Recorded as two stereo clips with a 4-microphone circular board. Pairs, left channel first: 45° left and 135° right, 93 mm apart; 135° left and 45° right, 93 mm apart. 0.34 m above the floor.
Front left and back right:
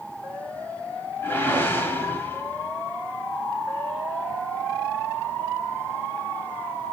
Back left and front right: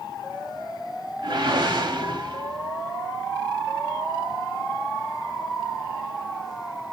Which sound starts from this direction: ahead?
A whoosh, at 1.2 s.